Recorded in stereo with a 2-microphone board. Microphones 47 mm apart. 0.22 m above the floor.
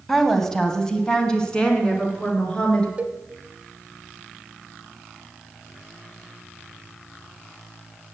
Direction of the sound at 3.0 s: 25° right (ahead or behind).